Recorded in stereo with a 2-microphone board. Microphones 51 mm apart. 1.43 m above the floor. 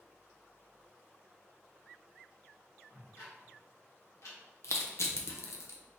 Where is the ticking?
70° left (ahead or behind), 1.4 m.